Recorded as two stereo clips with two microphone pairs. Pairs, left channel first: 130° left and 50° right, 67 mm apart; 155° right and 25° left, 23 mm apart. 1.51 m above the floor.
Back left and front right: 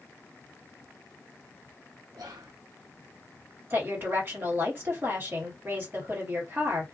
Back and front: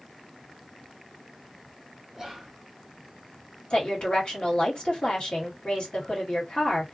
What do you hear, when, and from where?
2.1 s whispering: 45° right, 0.7 m
3.7 s a woman speaking: 105° right, 1.5 m